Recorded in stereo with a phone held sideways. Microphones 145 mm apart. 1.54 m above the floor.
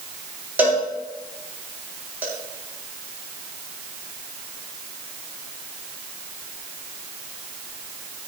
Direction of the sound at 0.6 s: 10° right (ahead or behind).